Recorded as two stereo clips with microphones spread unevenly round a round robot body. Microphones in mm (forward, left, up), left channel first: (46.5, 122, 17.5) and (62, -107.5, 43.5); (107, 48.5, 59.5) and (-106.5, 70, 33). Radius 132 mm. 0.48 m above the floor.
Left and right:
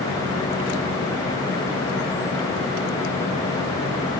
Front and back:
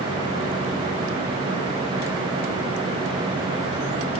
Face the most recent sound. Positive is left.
No sound to turn to.